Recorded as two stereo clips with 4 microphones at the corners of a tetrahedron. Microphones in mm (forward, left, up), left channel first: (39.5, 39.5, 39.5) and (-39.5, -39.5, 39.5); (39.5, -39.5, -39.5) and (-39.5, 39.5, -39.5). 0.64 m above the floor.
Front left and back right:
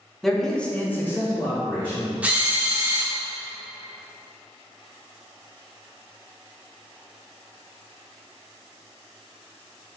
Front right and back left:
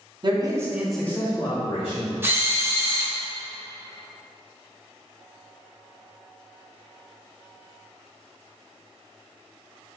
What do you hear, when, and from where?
0.2 s a man speaking: 135° left, 0.7 m; by 2.1 s 25° right, 1.2 m
2.2 s a drill: 165° left, 0.6 m